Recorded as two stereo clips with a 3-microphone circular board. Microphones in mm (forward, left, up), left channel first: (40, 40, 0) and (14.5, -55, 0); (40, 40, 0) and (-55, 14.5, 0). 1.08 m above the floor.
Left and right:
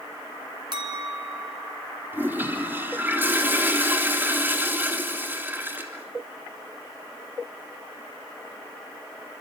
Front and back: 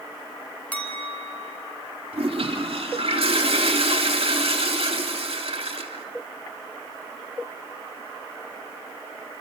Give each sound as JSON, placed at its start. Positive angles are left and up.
{"t": 0.7, "sound": "a clink", "azimuth_deg": -60, "distance_m": 4.0}
{"t": 2.1, "sound": "a toilet flushing", "azimuth_deg": -175, "distance_m": 3.0}